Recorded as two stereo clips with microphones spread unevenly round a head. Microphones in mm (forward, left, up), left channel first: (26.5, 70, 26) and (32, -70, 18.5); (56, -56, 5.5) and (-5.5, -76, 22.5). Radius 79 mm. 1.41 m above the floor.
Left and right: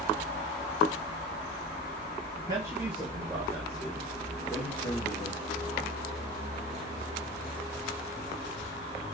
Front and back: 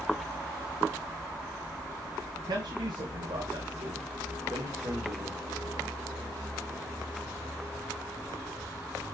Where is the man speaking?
155° right, 1.4 m; by 5.9 s 150° left, 3 m.